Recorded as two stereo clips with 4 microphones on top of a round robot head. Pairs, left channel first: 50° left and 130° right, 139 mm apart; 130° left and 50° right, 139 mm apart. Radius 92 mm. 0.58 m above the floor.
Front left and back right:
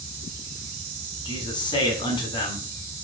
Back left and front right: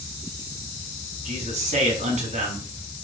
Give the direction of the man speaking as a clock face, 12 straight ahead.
12 o'clock.